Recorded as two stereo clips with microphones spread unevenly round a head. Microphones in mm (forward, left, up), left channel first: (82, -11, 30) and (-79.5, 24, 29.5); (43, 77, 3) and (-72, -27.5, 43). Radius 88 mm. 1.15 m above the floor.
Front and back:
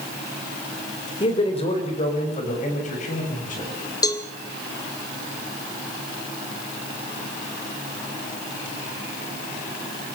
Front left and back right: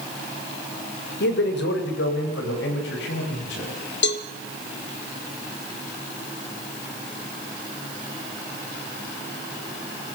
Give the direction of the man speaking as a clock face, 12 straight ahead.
10 o'clock.